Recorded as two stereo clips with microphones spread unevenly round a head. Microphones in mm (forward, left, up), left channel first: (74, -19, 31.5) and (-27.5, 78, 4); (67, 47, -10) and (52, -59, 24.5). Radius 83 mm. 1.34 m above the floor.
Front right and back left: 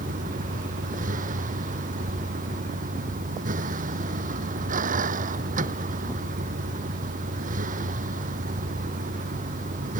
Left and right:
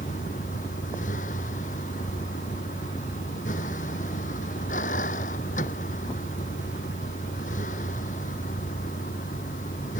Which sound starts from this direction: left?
A vehicle, at 0.0 s.